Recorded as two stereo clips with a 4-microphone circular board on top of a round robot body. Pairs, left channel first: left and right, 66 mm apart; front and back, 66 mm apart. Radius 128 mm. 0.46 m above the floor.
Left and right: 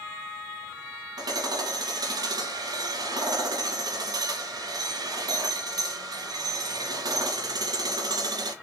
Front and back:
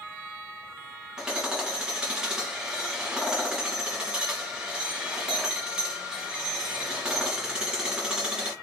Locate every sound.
1.2 s hammering: 100° right, 1.9 m